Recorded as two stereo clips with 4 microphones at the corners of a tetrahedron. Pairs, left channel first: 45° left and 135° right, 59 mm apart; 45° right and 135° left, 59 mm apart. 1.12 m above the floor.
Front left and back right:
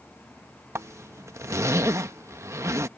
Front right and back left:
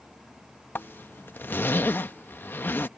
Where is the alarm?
I don't hear an alarm.